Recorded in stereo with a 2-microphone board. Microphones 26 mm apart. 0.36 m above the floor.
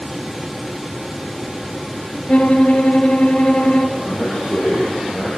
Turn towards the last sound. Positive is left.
turn(degrees=25)  # may be behind; listen again after turning